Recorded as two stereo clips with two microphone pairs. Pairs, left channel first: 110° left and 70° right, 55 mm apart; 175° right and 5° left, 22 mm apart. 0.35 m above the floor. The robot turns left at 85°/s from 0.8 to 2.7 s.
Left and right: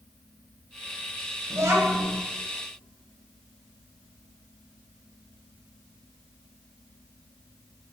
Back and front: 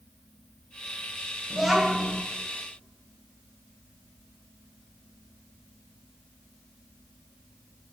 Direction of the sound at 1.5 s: 60° right.